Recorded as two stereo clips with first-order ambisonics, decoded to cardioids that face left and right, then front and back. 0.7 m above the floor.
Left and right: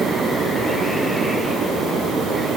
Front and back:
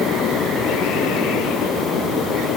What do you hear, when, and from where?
Only background noise.